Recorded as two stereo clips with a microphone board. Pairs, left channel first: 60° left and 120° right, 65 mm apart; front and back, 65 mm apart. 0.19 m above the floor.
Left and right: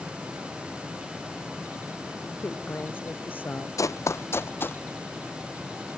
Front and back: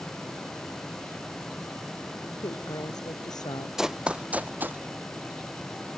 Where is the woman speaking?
Straight ahead.